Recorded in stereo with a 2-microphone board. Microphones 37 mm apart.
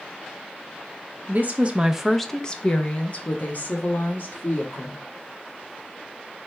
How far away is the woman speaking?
About 0.7 m.